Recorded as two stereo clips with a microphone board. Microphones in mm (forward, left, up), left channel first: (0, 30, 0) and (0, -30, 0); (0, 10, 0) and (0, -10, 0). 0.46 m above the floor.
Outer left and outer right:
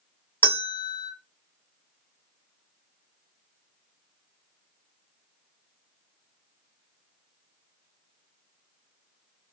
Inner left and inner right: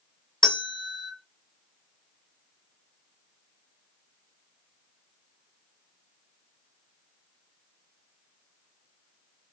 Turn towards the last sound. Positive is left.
turn(degrees=35)  # may be behind; listen again after turning